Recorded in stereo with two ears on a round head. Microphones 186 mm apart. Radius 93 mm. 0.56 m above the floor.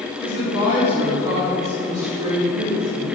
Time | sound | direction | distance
0.2 | a woman speaking | 25° right (ahead or behind) | 3 m